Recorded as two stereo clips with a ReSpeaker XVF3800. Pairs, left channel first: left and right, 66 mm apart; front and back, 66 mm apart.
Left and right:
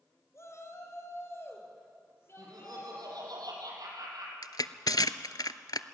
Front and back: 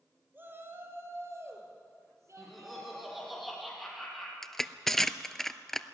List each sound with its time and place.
0.3 s a shout: 125° left, 2.5 m; by 3.4 s 145° left, 6.5 m
2.4 s laughter: 90° right, 6 m
4.4 s crushing: 85° left, 0.7 m